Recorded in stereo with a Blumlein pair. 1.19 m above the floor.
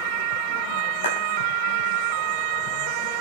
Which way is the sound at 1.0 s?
60° left.